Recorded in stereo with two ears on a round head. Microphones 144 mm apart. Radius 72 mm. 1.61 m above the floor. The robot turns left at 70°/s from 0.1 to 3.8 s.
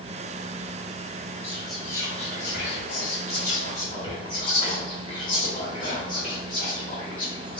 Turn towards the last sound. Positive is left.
turn(degrees=30)